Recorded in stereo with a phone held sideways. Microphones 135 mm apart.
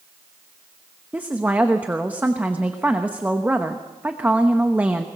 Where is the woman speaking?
10° right (ahead or behind), 1.0 m.